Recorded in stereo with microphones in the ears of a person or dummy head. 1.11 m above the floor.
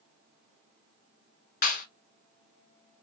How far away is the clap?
About 1.5 m.